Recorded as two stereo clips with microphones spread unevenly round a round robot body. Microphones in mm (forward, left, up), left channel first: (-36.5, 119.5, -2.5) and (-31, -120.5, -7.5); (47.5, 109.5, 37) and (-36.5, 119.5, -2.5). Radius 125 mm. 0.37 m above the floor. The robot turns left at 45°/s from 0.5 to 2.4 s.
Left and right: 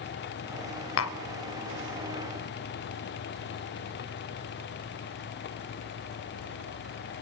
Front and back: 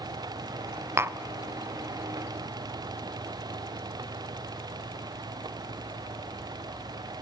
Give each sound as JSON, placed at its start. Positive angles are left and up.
{"t": 1.0, "sound": "tapping", "azimuth_deg": 125, "distance_m": 0.6}